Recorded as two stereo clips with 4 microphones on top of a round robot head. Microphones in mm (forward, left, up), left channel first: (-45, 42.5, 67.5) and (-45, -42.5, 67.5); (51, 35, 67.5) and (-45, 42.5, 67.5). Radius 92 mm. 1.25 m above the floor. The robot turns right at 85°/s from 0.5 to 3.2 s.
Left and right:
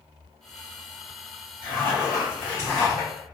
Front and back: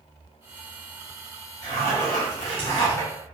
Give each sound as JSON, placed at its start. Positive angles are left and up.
{"t": 1.6, "sound": "a zipper", "azimuth_deg": -65, "distance_m": 0.9}